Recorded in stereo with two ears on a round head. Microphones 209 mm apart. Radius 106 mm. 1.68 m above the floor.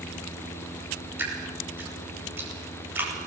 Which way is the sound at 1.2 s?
10° right (ahead or behind).